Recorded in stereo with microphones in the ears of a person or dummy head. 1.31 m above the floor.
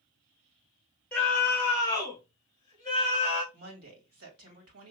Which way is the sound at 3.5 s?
80° right.